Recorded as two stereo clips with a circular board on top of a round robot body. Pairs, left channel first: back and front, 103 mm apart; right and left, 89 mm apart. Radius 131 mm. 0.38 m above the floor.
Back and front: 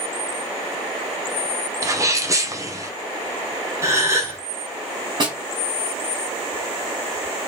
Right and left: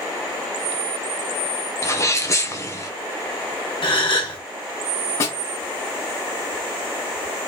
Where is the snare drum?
35° right, 2 m.